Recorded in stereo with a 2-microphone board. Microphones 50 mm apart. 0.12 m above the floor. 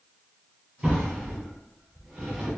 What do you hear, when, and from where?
0.8 s a drawer: 15° right (ahead or behind), 1.5 m